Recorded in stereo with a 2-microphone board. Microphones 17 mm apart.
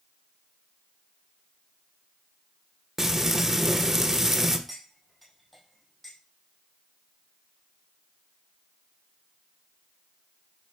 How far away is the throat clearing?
No throat clearing in this recording.